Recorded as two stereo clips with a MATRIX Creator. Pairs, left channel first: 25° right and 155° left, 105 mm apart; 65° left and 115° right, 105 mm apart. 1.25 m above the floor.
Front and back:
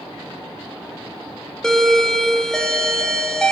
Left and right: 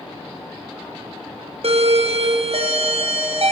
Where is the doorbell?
105° right, 0.8 m.